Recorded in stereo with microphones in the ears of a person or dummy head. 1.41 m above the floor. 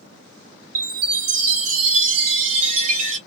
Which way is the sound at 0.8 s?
55° right (ahead or behind).